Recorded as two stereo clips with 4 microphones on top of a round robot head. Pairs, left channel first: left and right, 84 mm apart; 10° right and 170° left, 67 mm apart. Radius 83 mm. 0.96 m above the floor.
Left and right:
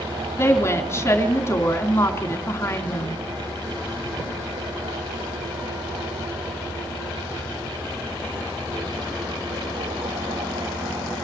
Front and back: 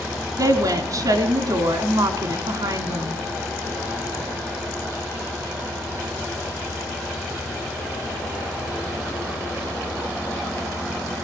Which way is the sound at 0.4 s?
145° left.